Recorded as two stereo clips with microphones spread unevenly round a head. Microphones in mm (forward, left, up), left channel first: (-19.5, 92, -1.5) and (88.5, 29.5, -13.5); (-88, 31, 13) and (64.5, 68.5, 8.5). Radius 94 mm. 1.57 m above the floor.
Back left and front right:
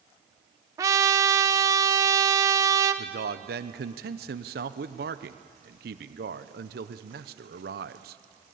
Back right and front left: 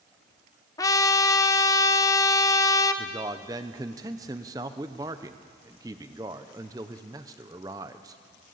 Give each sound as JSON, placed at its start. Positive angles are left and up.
{"t": 0.8, "sound": "a trumpet", "azimuth_deg": -100, "distance_m": 0.6}
{"t": 3.0, "sound": "a man speaking", "azimuth_deg": -60, "distance_m": 0.7}